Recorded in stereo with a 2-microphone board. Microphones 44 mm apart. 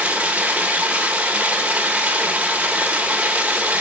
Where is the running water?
35° right (ahead or behind), 1.1 m.